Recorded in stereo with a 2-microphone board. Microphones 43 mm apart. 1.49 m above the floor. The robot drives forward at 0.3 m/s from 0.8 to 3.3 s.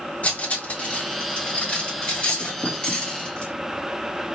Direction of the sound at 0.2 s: 35° left (ahead or behind).